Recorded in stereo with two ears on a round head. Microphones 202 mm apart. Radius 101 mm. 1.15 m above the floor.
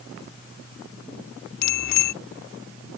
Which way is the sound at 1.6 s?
80° left.